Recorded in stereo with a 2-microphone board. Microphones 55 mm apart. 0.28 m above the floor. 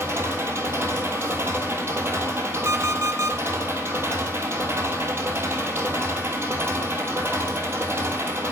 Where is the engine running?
45° right (ahead or behind), 1.8 m.